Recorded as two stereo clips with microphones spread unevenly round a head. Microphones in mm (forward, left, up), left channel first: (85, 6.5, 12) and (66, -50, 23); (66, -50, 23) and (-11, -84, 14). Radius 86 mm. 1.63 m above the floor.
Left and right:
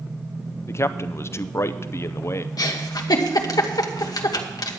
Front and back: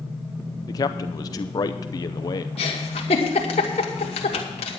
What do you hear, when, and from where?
0.7 s a man speaking: 30° left, 0.5 m
2.6 s a giggle: 55° left, 1.2 m